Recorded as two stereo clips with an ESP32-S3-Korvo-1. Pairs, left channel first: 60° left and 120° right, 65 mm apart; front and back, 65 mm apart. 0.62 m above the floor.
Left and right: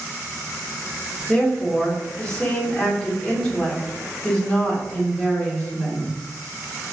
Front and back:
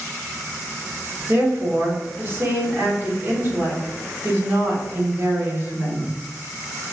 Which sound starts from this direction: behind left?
A woman speaking, at 1.3 s.